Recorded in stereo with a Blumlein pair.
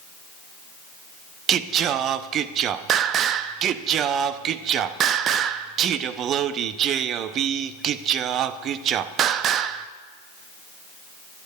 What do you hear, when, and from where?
1.5 s singing: 30° right, 0.6 m